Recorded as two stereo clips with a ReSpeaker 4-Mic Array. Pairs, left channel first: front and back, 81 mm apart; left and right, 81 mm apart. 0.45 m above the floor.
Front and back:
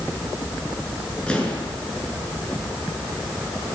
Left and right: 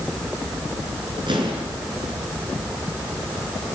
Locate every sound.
1.3 s an explosion: 80° right, 6.5 m